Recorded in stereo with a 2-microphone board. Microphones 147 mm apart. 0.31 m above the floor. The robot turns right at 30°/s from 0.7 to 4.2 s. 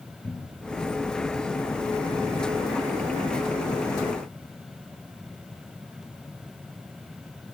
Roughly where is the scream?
I don't hear a scream.